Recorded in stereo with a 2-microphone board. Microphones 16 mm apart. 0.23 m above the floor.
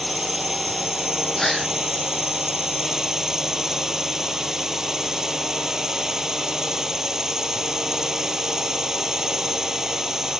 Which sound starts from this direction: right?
A drone, at 0.0 s.